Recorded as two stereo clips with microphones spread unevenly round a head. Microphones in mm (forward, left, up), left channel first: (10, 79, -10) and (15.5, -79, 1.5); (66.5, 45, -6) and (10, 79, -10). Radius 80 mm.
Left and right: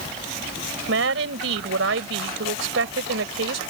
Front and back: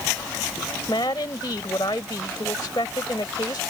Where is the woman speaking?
90° right.